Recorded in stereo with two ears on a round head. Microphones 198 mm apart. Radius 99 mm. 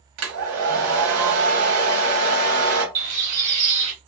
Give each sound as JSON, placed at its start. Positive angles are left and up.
{"t": 0.2, "sound": "a hair dryer", "side_deg": -75, "distance_m": 1.1}
{"t": 3.0, "sound": "a bird", "side_deg": -35, "distance_m": 1.7}